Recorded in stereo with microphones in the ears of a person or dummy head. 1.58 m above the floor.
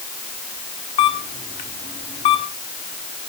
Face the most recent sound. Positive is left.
turn(degrees=30)  # may be behind; listen again after turning